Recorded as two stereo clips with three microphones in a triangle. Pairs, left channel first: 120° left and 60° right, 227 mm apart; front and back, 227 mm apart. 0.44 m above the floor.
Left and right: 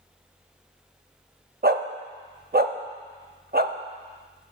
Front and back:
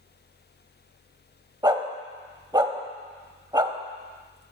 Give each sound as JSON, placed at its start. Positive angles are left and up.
{"t": 1.6, "sound": "a dog barking", "azimuth_deg": -110, "distance_m": 0.6}